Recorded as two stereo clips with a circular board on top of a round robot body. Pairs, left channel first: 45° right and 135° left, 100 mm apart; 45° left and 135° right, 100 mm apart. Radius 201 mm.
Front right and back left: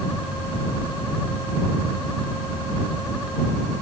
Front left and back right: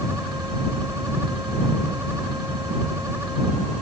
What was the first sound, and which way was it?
Only background noise.